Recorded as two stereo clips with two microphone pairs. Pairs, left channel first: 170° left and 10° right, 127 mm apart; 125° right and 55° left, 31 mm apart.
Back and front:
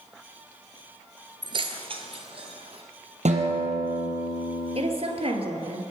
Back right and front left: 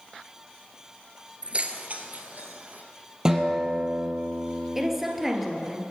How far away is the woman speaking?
About 2 m.